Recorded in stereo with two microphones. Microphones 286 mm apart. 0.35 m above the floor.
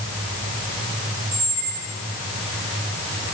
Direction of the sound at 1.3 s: 65° right (ahead or behind).